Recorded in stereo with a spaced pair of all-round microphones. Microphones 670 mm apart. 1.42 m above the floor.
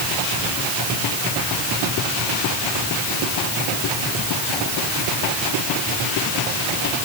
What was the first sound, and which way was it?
Only background noise.